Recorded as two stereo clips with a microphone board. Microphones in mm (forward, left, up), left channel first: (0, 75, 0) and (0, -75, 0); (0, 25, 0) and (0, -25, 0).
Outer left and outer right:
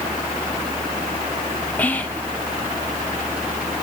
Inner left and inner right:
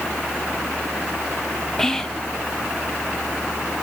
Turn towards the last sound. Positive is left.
turn(degrees=10)  # may be behind; listen again after turning